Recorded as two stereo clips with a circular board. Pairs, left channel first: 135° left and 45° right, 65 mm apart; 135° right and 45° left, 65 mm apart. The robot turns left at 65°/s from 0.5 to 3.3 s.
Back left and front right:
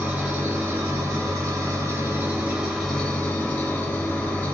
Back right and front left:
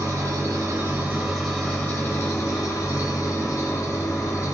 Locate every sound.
0.0 s an engine running: 15° left, 0.9 m; by 4.5 s 165° right, 0.9 m